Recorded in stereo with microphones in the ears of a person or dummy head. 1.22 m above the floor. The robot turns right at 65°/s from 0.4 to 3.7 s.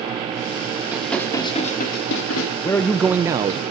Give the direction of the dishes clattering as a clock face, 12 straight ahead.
12 o'clock.